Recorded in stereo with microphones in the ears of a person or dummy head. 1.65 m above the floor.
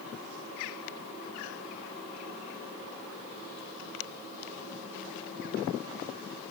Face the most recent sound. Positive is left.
No sound to turn to.